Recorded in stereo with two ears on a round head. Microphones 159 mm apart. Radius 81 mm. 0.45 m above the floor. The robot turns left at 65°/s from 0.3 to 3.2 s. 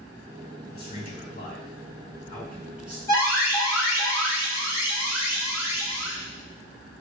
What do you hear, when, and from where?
0.7 s a man speaking: 125° left, 1.4 m; by 3.0 s 25° right, 1.4 m
3.1 s an alarm: 20° left (ahead or behind), 1.6 m